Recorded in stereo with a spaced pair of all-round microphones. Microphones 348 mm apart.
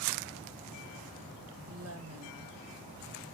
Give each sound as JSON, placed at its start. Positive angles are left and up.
{"t": 1.7, "sound": "a woman speaking", "side_deg": -45, "distance_m": 2.0}